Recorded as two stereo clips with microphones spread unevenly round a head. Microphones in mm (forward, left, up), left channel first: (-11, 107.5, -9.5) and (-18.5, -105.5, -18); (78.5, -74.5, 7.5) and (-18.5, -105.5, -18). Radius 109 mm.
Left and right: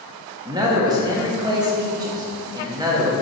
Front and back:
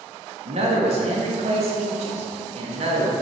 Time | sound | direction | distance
0.5 | a man speaking | 165° right | 1.5 m